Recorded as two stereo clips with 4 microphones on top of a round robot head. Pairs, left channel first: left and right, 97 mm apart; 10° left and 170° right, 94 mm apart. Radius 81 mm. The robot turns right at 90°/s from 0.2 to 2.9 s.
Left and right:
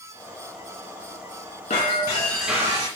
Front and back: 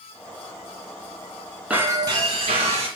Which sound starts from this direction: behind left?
Breaking glass, at 1.7 s.